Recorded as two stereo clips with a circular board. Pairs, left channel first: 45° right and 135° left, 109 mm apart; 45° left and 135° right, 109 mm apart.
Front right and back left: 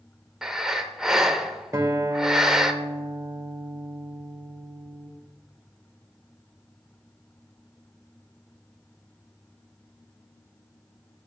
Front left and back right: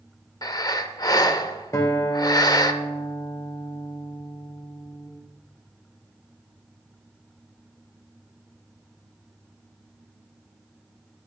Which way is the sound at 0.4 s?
55° left.